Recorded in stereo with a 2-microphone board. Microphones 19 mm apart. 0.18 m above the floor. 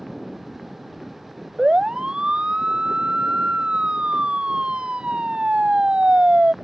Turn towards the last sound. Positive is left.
turn(degrees=-80)